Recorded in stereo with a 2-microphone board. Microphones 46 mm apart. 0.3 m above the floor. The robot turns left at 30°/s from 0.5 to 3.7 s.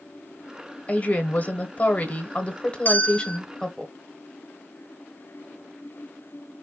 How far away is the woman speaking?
About 1.0 m.